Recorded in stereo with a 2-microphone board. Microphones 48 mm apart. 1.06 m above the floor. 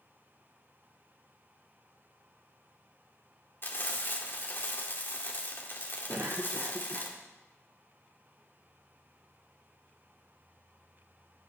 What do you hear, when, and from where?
3.6 s frying: 50° left (ahead or behind), 2.5 m
6.1 s a cough: 50° right (ahead or behind), 1.0 m